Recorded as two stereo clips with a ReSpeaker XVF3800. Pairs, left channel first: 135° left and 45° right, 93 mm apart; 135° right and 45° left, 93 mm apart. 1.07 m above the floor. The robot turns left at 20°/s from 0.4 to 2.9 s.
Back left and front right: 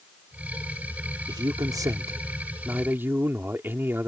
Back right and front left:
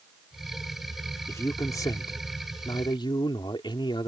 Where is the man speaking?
80° right; by 4.1 s 110° right.